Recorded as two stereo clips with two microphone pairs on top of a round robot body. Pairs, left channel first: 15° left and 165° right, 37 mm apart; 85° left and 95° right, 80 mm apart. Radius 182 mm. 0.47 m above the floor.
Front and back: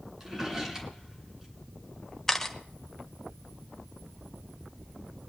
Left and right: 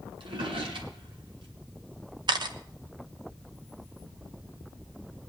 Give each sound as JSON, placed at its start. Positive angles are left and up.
{"t": 0.2, "sound": "a drawer", "azimuth_deg": -80, "distance_m": 2.0}
{"t": 2.3, "sound": "a camera shutter", "azimuth_deg": -60, "distance_m": 1.0}